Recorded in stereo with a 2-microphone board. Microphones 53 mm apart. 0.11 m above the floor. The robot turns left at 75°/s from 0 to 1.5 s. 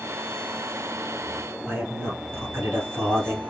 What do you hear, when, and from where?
1.7 s a man speaking: 45° right (ahead or behind), 2 m